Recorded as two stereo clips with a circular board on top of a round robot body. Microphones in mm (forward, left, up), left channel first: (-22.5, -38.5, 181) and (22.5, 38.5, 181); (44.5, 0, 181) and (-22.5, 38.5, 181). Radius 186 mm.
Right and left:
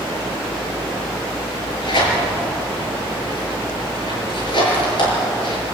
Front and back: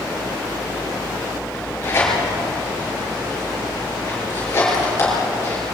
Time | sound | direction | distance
1.5 | tearing paper | 90° right | 6 m